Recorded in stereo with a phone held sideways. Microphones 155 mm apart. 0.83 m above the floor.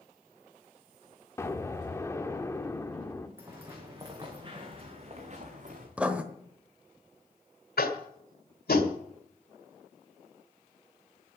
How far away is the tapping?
About 1.8 m.